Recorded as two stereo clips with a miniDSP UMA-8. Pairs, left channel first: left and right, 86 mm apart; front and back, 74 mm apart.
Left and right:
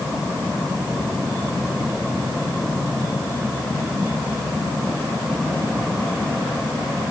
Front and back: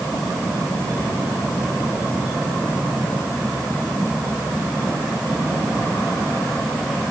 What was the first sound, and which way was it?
Only background noise.